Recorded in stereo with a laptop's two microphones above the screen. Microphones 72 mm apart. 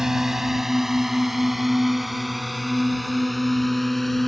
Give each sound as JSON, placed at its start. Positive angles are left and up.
{"t": 0.0, "sound": "a drone", "side_deg": -5}